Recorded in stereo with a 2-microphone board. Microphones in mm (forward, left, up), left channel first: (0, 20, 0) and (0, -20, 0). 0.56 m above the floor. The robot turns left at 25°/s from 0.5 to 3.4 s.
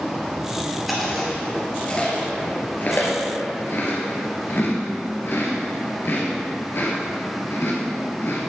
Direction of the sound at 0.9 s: Centre (ahead or behind).